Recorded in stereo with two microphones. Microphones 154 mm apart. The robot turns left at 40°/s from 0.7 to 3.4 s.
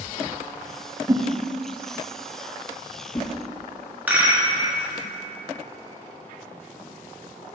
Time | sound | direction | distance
1.1 | a whoosh | 20° right (ahead or behind) | 0.5 m
4.1 | a rattle | 10° right (ahead or behind) | 1.2 m